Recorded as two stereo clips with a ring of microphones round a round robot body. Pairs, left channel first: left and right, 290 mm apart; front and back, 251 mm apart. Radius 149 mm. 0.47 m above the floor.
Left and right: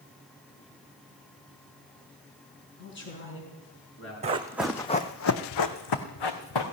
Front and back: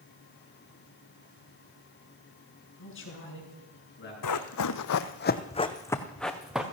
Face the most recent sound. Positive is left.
turn(degrees=95)